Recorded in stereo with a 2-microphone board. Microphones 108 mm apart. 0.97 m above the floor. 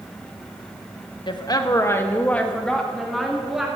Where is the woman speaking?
45° left (ahead or behind), 1.1 m; by 3.7 s 5° right (ahead or behind), 2.5 m.